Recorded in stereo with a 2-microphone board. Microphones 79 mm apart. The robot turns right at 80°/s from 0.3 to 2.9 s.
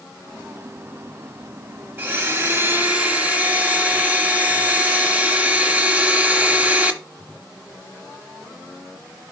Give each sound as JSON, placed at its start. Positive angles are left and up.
{"t": 2.0, "sound": "a blender", "side_deg": -25, "distance_m": 1.1}